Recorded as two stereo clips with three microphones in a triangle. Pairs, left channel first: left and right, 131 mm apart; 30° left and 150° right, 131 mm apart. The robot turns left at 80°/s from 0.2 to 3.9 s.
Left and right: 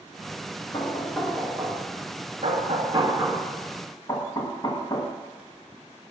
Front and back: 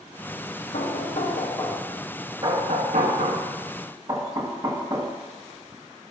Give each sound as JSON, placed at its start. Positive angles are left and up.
{"t": 0.7, "sound": "knocking", "azimuth_deg": 40, "distance_m": 1.4}